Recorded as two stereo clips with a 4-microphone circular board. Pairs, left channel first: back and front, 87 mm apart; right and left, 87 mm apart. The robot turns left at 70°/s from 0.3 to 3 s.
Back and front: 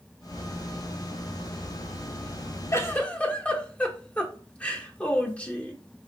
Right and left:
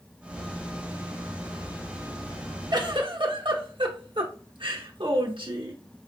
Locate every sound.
2.7 s a giggle: 125° left, 0.8 m; by 5.8 s 105° left, 0.8 m